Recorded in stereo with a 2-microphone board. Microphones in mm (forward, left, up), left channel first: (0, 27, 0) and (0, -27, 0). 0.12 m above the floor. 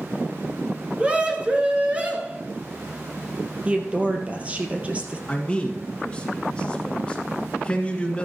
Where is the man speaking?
15° left (ahead or behind), 1.6 m.